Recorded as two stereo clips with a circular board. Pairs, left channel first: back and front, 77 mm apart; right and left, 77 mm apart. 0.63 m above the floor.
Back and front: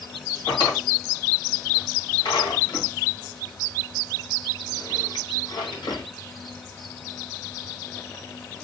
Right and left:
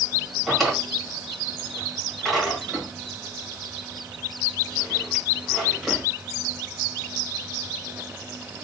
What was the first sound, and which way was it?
A drawer, 175° right.